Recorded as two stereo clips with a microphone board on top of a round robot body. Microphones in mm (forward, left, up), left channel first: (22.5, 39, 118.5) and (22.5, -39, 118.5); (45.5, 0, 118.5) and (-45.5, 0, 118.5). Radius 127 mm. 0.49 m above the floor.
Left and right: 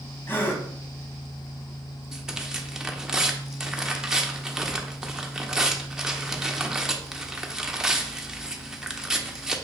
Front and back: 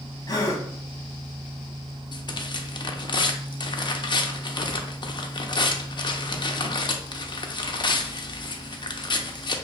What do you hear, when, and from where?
0.3 s a gasp: 35° left, 1.1 m
2.1 s tearing paper: 10° right, 0.7 m